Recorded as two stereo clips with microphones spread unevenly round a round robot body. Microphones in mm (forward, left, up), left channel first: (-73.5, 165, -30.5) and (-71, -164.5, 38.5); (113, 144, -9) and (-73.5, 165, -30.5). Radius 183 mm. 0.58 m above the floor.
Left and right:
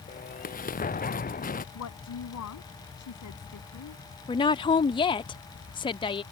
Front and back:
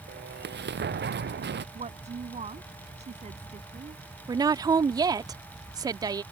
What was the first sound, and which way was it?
An explosion, 155° left.